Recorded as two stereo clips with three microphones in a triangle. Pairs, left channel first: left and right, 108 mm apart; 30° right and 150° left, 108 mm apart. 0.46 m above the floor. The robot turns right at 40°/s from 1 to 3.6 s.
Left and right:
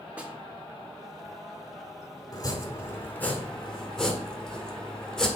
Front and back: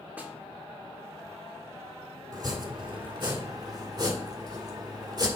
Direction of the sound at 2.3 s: 120° left.